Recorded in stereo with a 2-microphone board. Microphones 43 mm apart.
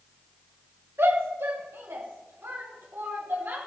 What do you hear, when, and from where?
1.0 s a shout: 70° right (ahead or behind), 2.5 m; by 3.6 s 55° right (ahead or behind), 4 m